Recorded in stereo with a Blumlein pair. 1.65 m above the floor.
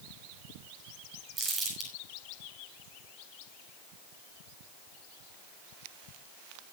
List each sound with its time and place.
1.4 s crumpling: 15° right, 6.5 m